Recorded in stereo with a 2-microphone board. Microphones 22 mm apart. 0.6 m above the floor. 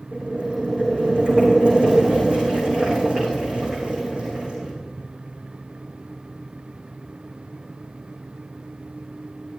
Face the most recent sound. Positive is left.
turn(degrees=-50)  # may be behind; listen again after turning